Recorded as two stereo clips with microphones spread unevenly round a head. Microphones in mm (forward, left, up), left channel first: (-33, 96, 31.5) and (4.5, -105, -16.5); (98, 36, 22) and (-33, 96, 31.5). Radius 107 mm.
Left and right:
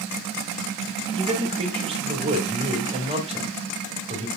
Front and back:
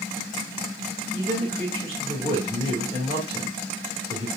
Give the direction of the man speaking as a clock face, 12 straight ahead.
5 o'clock.